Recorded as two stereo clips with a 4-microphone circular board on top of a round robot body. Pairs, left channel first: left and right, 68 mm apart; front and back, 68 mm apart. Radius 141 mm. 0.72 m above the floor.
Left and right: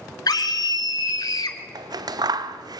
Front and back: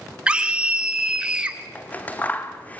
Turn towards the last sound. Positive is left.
turn(degrees=-70)